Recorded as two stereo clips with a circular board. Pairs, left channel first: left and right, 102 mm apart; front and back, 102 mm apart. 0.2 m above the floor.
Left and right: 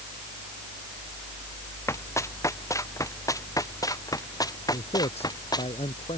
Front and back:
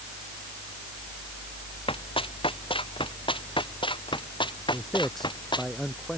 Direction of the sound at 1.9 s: 25° left.